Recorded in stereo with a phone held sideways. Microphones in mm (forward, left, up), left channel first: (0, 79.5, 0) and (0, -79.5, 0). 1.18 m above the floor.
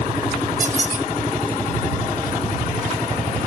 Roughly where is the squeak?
Right.